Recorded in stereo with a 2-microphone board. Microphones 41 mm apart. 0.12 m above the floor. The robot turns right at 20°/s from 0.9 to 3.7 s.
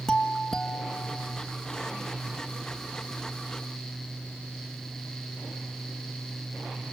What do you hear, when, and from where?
0.1 s a doorbell: 20° left (ahead or behind), 1.6 m; by 1.4 s 15° left (ahead or behind), 1.6 m